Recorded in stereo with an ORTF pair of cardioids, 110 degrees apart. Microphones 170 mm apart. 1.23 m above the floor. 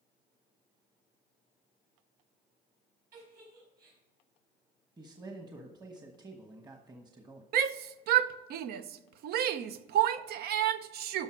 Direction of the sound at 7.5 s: 70° right.